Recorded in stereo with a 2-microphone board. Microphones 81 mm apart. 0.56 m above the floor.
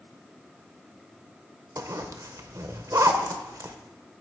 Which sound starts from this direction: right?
A zipper, at 1.8 s.